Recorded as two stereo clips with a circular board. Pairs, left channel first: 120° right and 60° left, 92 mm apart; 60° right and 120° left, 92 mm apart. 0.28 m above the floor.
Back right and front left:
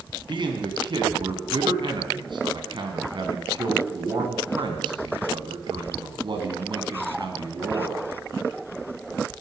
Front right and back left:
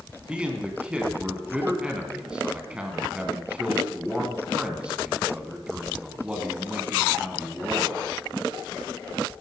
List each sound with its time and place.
0.3 s a man speaking: 45° left, 2.5 m